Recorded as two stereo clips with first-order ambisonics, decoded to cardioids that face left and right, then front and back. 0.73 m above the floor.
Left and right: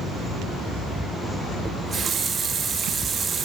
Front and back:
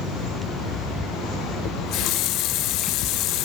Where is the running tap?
25° right, 0.5 m.